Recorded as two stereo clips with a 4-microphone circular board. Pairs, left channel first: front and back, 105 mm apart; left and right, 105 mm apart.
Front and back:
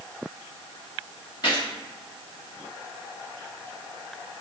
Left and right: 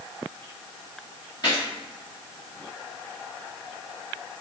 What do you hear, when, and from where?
1.4 s a gunshot: 45° left, 2 m